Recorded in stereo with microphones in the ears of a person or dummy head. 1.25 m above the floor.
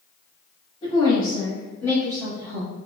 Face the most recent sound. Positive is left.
turn(degrees=-5)  # may be behind; listen again after turning